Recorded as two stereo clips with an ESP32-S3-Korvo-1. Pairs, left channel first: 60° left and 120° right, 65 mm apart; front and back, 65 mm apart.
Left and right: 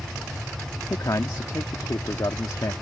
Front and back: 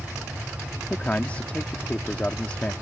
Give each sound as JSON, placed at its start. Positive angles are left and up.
{"t": 0.9, "sound": "a man speaking", "azimuth_deg": 65}